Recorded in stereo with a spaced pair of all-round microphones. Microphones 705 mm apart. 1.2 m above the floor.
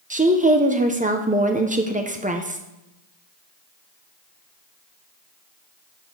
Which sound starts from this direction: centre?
A woman speaking, at 0.1 s.